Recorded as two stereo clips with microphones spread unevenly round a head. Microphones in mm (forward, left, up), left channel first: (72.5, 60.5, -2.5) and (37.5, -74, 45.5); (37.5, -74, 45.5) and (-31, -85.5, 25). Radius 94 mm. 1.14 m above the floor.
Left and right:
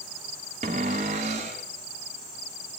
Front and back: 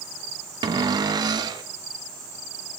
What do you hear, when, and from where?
0.6 s a cupboard door: 150° right, 0.8 m